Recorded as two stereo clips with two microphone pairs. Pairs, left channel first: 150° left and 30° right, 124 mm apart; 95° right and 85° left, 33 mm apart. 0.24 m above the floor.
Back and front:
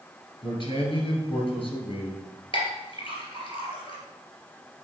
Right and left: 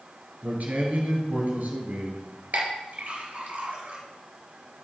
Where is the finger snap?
No finger snap in this recording.